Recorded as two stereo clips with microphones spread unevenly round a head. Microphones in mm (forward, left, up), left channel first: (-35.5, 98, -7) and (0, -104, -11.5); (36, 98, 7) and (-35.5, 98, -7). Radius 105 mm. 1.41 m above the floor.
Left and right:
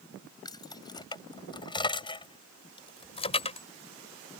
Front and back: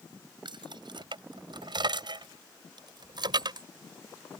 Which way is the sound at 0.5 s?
170° left.